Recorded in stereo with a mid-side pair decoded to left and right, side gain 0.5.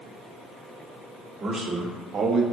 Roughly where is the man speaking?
Ahead right.